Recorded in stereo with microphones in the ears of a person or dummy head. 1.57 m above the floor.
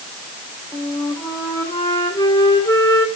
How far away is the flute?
About 2.5 m.